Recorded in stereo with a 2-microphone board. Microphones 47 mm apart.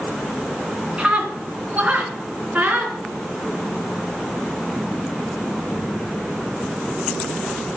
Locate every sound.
1.0 s a scream: 20° right (ahead or behind), 3 m; by 3.0 s 35° right (ahead or behind), 3.5 m